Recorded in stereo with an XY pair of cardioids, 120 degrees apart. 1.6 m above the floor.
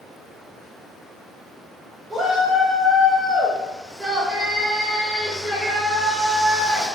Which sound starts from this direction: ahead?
A shout, at 2.1 s.